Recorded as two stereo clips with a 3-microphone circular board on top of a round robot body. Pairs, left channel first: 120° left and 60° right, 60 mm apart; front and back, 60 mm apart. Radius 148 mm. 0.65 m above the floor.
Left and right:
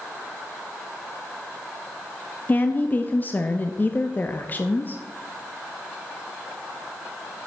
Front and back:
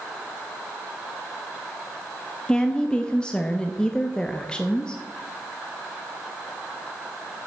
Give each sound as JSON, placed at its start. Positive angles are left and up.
{"t": 2.5, "sound": "a woman speaking", "azimuth_deg": 70, "distance_m": 0.8}